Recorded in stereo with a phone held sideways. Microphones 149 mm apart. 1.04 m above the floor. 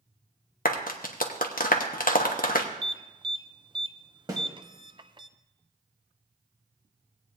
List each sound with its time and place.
0.7 s a clap: 80° left, 1.0 m
2.8 s an alarm: 35° right (ahead or behind), 0.5 m
4.3 s a snare drum: 25° right (ahead or behind), 2 m